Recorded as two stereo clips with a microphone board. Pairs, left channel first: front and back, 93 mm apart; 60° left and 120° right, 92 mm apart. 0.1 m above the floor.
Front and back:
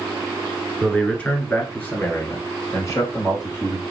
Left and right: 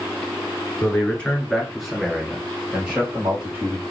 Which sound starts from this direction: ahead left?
A man speaking, at 0.8 s.